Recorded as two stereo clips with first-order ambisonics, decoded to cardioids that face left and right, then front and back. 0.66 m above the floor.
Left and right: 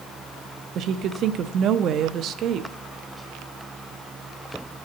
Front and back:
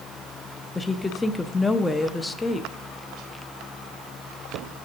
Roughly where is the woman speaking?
Right.